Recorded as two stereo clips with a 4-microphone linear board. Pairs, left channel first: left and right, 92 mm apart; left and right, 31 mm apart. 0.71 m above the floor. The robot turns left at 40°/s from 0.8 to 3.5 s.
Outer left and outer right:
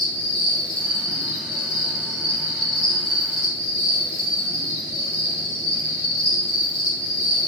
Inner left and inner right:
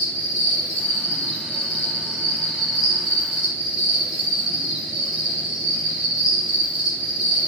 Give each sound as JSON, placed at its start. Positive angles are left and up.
{"t": 0.0, "sound": "an insect", "azimuth_deg": 90, "distance_m": 1.6}